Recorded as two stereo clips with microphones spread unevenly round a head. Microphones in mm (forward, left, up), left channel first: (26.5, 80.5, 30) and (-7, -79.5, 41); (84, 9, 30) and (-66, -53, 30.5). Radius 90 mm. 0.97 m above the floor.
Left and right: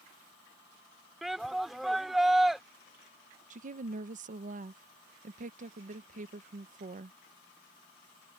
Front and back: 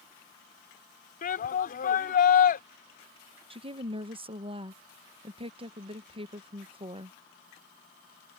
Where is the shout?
10° right.